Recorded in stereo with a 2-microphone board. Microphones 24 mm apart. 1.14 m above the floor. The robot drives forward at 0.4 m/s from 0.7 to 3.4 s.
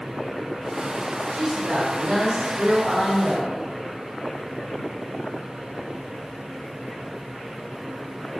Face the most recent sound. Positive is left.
turn(degrees=-55)  # may be behind; listen again after turning